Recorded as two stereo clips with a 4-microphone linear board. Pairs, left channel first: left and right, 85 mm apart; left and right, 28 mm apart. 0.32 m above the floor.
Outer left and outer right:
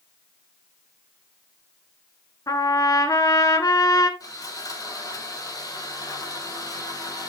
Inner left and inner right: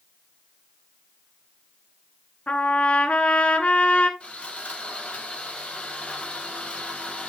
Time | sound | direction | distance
2.5 | a trumpet | 45° left (ahead or behind) | 1.5 m
4.2 | sawing | 45° left (ahead or behind) | 9 m